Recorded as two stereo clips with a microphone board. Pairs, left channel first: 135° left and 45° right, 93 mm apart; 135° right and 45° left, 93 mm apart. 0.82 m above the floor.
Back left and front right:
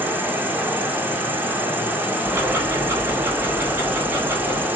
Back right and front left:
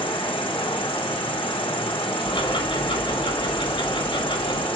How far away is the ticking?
About 4 m.